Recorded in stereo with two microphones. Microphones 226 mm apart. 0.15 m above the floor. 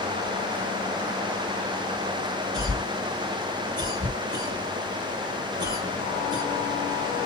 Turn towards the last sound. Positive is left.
turn(degrees=-20)  # may be behind; listen again after turning